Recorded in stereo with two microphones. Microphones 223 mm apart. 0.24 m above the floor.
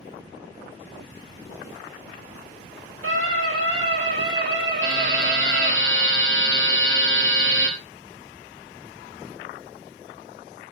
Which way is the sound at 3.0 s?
75° right (ahead or behind).